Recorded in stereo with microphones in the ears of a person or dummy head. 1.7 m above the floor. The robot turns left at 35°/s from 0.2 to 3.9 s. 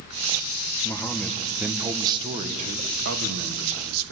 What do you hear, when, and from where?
0.8 s a man speaking: 20° left, 1.6 m; by 4.1 s 85° right, 1.6 m